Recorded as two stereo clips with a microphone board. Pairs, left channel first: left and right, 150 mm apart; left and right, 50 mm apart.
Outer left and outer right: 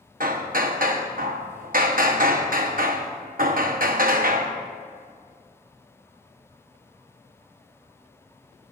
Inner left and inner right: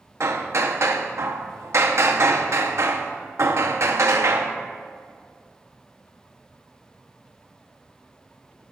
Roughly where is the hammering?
Right.